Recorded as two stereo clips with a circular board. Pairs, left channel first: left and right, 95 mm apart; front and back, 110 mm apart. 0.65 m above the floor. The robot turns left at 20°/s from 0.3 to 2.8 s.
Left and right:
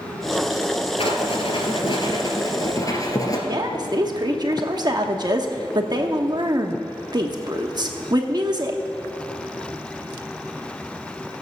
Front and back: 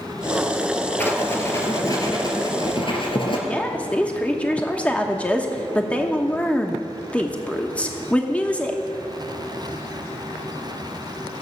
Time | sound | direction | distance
1.0 | writing | 75° left | 2 m
3.5 | a woman speaking | 75° right | 1.0 m